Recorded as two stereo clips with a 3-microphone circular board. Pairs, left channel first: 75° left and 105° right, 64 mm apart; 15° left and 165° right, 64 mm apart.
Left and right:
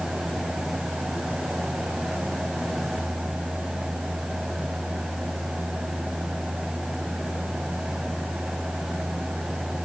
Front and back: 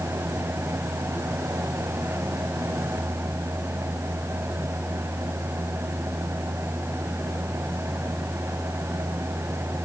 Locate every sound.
Only background noise.